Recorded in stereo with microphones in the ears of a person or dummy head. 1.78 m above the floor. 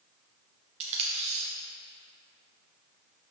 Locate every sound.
0.8 s tape being pulled: 40° right (ahead or behind), 0.9 m